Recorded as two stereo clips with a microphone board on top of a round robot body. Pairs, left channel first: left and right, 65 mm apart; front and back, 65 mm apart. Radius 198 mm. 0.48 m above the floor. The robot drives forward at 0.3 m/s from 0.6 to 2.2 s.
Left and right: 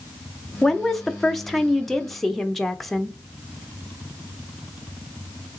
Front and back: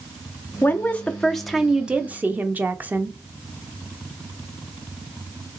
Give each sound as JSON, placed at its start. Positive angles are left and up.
{"t": 0.6, "sound": "a woman speaking", "azimuth_deg": 5, "distance_m": 0.7}